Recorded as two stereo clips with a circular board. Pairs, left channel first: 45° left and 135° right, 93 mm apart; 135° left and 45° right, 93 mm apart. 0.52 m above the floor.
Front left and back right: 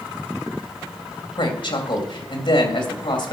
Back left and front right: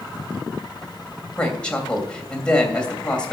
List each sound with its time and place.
1.4 s a woman speaking: 55° left, 2.5 m